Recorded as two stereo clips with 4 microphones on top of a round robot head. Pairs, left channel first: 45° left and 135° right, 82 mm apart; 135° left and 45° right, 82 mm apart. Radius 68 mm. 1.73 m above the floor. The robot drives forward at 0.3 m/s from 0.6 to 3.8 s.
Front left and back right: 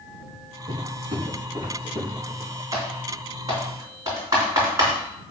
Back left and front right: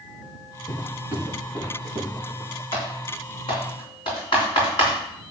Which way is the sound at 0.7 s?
170° right.